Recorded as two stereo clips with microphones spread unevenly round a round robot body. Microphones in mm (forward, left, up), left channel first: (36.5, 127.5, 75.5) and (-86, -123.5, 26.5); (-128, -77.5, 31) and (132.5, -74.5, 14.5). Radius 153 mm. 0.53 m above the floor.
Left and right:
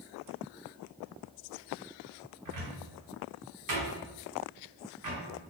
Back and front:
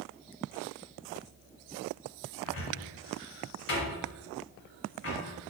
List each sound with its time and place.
2.5 s a cupboard door: 140° right, 1.7 m